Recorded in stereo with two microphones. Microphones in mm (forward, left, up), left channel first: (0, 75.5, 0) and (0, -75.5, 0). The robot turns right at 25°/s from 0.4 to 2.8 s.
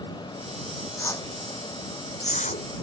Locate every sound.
1.0 s a whoosh: 15° left (ahead or behind); by 2.7 s 60° left (ahead or behind)